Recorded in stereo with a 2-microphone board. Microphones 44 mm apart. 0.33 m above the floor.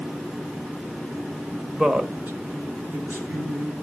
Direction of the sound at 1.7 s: 15° right (ahead or behind).